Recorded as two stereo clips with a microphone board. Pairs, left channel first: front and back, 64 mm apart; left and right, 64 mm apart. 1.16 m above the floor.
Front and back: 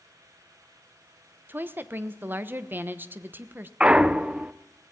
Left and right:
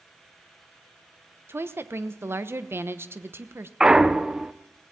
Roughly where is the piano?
I don't hear a piano.